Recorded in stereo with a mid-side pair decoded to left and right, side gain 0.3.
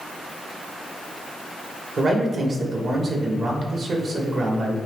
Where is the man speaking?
65° right, 2.5 m.